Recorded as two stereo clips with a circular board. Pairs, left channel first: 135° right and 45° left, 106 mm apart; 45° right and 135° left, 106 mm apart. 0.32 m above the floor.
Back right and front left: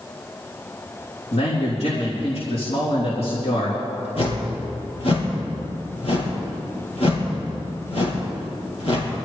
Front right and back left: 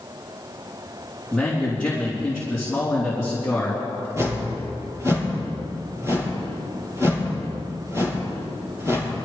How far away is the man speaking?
About 4 m.